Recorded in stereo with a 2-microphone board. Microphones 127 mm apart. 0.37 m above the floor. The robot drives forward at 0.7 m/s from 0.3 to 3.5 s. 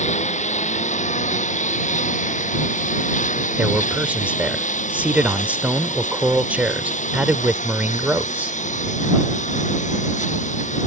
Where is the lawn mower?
65° left (ahead or behind); by 10.9 s 70° left (ahead or behind).